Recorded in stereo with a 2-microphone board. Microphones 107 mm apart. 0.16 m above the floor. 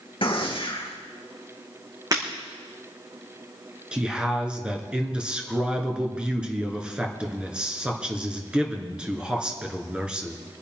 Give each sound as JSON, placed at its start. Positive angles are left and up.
{"t": 0.2, "sound": "a gunshot", "side_deg": 55, "distance_m": 3.0}
{"t": 2.1, "sound": "breaking glass", "side_deg": -35, "distance_m": 5.5}
{"t": 3.9, "sound": "a man speaking", "side_deg": -10, "distance_m": 2.5}